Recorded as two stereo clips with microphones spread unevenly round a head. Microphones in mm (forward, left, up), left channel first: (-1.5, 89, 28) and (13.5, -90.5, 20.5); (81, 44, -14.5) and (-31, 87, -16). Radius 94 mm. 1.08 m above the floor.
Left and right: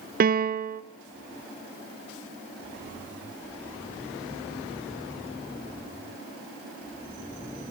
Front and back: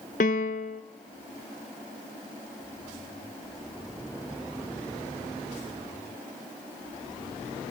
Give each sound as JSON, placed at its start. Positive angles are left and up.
{"t": 0.2, "sound": "a piano", "azimuth_deg": -50, "distance_m": 0.7}